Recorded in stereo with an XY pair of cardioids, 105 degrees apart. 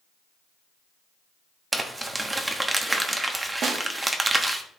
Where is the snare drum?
65° right, 1.2 m.